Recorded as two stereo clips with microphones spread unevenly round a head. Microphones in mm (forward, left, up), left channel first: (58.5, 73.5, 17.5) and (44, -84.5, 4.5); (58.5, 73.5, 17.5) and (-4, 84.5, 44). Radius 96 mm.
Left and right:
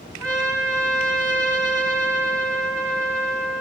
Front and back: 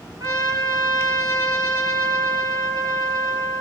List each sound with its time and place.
0.2 s a trumpet: 160° left, 8.5 m